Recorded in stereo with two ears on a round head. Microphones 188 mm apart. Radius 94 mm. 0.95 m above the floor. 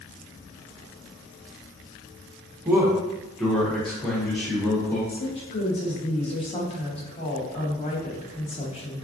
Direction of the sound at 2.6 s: 10° right (ahead or behind).